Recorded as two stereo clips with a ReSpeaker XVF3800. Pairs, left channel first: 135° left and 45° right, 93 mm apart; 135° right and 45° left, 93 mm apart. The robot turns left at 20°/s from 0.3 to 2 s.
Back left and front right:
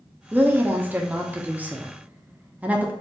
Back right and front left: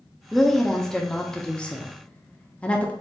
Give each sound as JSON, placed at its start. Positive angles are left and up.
{"t": 0.3, "sound": "a woman speaking", "azimuth_deg": -50, "distance_m": 0.5}